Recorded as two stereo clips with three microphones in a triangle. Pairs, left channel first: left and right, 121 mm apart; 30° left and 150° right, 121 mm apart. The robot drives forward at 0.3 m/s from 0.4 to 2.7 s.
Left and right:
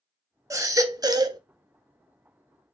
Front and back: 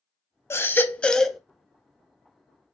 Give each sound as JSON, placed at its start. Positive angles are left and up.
{"t": 0.5, "sound": "a baby crying", "azimuth_deg": -35, "distance_m": 0.6}